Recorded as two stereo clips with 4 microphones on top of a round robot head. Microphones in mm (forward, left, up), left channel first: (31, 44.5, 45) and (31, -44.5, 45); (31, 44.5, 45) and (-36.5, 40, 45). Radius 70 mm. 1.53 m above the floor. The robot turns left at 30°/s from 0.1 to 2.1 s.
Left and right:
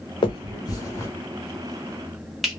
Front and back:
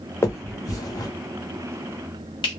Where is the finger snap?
55° left, 0.8 m; by 2.5 s straight ahead, 0.8 m.